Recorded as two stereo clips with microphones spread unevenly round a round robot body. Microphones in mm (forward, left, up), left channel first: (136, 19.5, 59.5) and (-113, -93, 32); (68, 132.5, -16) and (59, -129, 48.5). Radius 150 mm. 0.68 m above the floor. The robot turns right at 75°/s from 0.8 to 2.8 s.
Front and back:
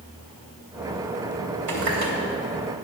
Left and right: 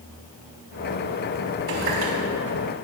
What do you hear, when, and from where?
1.7 s a running tap: 155° right, 3 m; by 2.1 s 125° right, 3 m